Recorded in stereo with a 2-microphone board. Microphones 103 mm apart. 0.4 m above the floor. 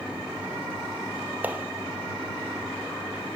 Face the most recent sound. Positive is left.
turn(degrees=-15)  # may be behind; listen again after turning